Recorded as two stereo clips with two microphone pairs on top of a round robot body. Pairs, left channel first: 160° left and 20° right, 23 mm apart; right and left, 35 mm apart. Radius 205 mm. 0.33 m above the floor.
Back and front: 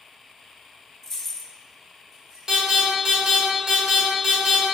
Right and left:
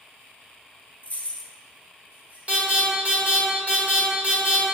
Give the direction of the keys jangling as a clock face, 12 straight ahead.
4 o'clock.